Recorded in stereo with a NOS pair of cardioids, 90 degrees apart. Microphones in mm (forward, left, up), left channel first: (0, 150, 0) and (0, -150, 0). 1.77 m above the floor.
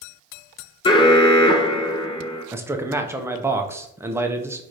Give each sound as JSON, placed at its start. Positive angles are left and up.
{"t": 0.8, "sound": "an alarm", "azimuth_deg": 15, "distance_m": 0.5}
{"t": 2.5, "sound": "a man speaking", "azimuth_deg": -10, "distance_m": 0.6}